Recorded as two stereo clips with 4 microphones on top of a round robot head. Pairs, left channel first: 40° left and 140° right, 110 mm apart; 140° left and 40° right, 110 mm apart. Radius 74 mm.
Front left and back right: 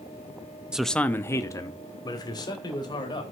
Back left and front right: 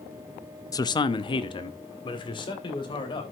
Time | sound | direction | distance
0.7 | a man speaking | 145° left | 0.6 m